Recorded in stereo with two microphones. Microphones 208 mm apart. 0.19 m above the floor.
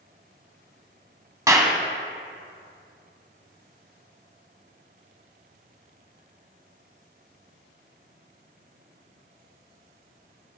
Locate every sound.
1.5 s a clap: 15° right (ahead or behind), 0.9 m